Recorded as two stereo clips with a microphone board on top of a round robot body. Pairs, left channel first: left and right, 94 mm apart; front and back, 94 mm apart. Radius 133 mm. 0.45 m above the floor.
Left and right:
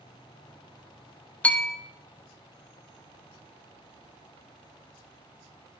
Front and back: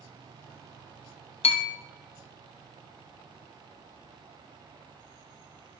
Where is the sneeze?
No sneeze in this recording.